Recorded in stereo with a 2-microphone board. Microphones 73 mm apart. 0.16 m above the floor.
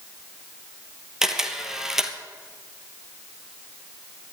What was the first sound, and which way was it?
A camera shutter, 5° right (ahead or behind).